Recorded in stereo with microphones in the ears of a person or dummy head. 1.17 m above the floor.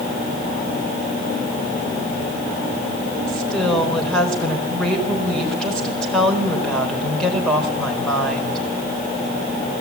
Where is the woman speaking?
5° left (ahead or behind), 4.5 m.